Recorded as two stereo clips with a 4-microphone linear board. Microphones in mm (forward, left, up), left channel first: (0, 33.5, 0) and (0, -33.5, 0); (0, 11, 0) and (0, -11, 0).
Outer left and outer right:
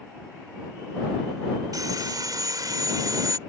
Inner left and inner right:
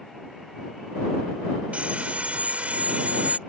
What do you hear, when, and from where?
1.7 s sawing: 70° right (ahead or behind)